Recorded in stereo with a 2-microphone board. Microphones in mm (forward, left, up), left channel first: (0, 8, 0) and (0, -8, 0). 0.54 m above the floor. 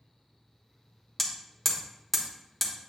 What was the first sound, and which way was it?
Hammering, 10° left (ahead or behind).